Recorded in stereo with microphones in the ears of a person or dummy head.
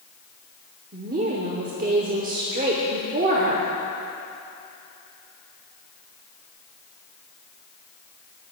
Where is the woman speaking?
40° right (ahead or behind), 0.9 m.